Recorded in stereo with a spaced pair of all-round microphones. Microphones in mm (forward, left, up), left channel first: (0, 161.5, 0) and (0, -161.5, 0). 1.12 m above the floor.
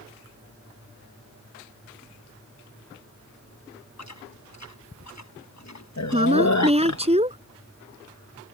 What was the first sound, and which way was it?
Chewing, 55° left (ahead or behind).